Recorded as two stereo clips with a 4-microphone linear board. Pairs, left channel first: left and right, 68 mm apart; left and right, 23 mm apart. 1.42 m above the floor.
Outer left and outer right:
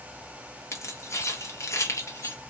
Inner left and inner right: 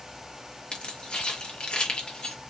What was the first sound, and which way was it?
Keys jangling, 45° left (ahead or behind).